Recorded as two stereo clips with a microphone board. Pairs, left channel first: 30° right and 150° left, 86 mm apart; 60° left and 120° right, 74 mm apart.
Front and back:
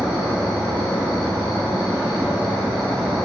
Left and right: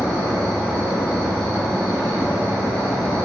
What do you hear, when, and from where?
0.0 s an insect: 125° left, 1.2 m